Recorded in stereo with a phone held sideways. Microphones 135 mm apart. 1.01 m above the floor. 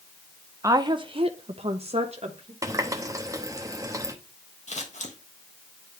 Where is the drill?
I don't hear a drill.